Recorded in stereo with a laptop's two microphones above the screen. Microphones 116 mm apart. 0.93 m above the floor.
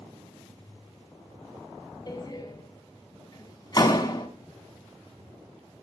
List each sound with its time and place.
2.1 s a door slam: 35° left (ahead or behind), 5 m